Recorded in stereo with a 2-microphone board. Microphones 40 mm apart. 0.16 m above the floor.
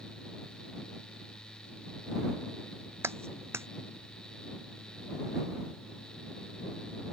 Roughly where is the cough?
I don't hear a cough.